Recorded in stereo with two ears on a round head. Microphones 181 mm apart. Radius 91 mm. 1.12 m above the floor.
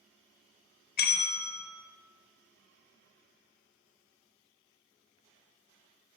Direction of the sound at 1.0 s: 45° left (ahead or behind).